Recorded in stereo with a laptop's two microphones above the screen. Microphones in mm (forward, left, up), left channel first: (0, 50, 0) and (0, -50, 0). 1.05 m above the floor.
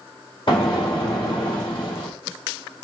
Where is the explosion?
55° left (ahead or behind), 2.5 m.